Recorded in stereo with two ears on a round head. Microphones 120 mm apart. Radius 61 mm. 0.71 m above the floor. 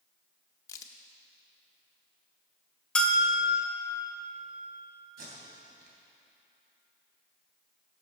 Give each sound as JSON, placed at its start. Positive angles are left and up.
{"t": 0.7, "sound": "a crack", "side_deg": 25, "distance_m": 0.9}
{"t": 3.0, "sound": "a bell", "side_deg": 10, "distance_m": 1.1}
{"t": 5.2, "sound": "tape being pulled", "side_deg": -85, "distance_m": 3.0}